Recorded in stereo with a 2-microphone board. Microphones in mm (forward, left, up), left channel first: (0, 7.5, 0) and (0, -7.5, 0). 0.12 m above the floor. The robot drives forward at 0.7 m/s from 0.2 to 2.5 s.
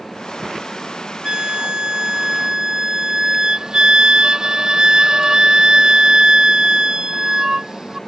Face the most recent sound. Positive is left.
turn(degrees=-50)  # may be behind; listen again after turning